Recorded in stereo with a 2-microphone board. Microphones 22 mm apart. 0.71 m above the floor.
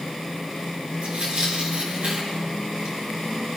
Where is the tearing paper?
60° right (ahead or behind), 6 m.